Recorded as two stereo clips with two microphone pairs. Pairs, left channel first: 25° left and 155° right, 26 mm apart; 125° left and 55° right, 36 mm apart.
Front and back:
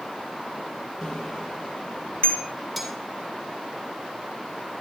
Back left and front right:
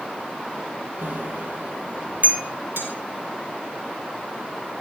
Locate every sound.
1.0 s a bicycle bell: 30° right, 3.5 m; by 2.4 s 10° right, 3.5 m
2.8 s cutlery clinking: 60° right, 6 m